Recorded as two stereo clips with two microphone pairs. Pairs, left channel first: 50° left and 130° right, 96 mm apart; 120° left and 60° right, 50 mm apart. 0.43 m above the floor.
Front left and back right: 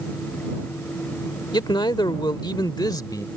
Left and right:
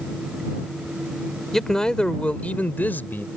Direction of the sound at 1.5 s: 40° left.